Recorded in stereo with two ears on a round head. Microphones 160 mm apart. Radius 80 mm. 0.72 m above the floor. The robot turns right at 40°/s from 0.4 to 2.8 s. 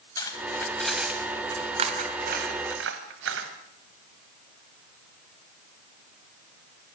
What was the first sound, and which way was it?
Cutlery clinking, 20° left (ahead or behind).